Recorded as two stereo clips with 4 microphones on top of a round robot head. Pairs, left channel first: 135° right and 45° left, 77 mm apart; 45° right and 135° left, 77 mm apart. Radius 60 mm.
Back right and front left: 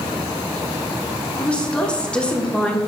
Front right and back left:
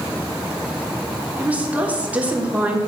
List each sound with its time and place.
1.4 s a woman speaking: 170° left, 1.2 m